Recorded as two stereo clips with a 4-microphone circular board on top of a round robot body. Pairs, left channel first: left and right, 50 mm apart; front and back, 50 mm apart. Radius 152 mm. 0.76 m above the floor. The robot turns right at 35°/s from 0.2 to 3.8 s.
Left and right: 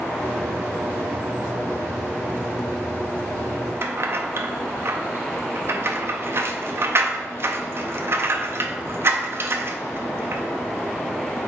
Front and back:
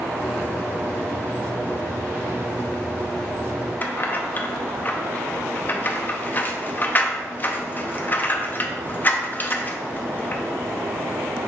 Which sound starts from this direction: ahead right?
Keys jangling, at 3.8 s.